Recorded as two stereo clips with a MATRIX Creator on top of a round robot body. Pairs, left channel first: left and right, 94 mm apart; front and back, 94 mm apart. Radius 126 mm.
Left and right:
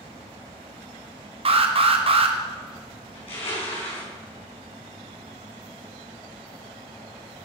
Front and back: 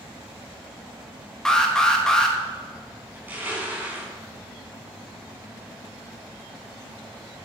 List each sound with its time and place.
1.4 s an alarm: 85° right, 1.5 m
3.1 s crushing: 110° left, 5 m